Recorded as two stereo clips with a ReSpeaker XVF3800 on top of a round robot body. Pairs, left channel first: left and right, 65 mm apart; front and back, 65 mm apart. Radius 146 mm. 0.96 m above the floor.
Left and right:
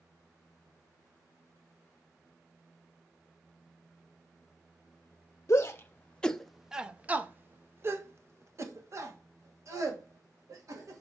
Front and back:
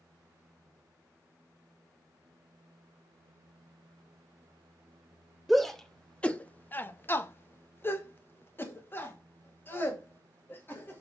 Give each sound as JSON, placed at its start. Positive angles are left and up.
{"t": 5.5, "sound": "a shout", "azimuth_deg": 90, "distance_m": 1.0}